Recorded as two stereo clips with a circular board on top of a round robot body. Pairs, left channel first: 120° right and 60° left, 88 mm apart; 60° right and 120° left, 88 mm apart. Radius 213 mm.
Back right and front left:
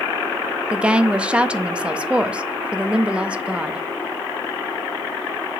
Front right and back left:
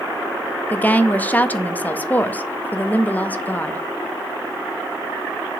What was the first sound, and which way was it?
A woman speaking, 5° right.